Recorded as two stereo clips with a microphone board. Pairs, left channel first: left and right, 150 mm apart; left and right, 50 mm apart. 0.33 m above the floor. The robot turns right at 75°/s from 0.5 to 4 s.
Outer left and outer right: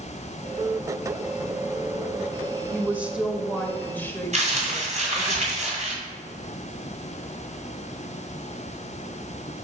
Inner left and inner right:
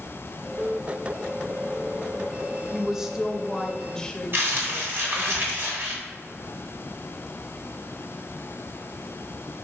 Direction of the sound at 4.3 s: 55° right (ahead or behind).